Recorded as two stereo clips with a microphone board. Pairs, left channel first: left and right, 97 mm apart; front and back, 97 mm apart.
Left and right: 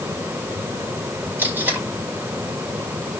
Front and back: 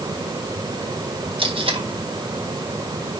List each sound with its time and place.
1.4 s tape being pulled: 160° right, 4 m